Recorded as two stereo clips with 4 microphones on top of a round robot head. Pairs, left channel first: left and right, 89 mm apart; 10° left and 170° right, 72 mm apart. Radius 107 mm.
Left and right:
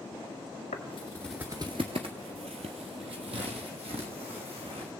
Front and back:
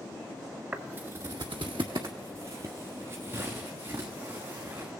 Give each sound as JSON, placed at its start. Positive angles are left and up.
{"t": 0.7, "sound": "footsteps", "azimuth_deg": 120, "distance_m": 0.6}